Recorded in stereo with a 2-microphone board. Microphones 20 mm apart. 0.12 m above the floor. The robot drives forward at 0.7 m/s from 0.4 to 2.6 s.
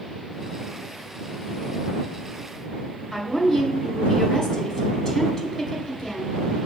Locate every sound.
3.1 s a woman speaking: 15° left (ahead or behind), 1.2 m